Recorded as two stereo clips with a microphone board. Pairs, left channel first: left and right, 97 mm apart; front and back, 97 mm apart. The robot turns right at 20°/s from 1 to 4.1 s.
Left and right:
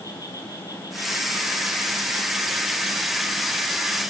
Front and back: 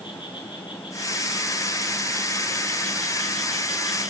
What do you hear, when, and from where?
0.0 s an insect: 40° left, 5.5 m; by 4.1 s 100° left, 5.5 m